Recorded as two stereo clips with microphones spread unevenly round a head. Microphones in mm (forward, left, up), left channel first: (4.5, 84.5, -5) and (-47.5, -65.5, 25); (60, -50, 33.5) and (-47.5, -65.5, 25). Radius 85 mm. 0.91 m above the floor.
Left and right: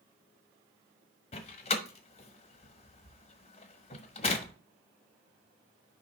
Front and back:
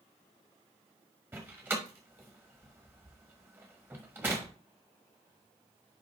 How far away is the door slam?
About 1.1 m.